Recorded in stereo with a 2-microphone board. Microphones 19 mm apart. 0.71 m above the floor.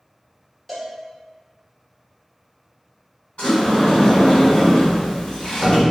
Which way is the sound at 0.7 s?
15° left (ahead or behind).